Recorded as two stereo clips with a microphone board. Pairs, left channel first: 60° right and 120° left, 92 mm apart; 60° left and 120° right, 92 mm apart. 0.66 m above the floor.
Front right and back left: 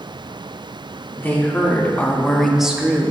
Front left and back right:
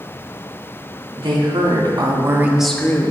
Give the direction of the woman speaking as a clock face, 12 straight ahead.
4 o'clock.